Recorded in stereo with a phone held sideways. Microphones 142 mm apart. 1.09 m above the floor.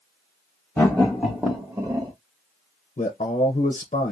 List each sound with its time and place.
0.8 s laughter: 20° left (ahead or behind), 1.2 m; by 2.1 s 35° right (ahead or behind), 1.4 m
3.0 s a man speaking: 55° left (ahead or behind), 0.7 m